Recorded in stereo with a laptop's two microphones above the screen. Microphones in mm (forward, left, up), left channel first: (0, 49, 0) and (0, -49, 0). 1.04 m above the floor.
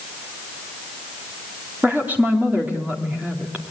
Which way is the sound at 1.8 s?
20° right (ahead or behind).